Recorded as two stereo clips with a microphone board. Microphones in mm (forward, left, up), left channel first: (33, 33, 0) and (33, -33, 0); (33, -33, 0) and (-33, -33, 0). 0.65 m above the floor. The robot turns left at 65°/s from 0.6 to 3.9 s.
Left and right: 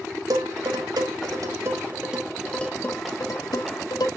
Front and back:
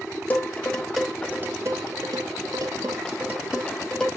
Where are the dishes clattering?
65° right, 2.5 m; by 4.1 s 80° left, 2.5 m.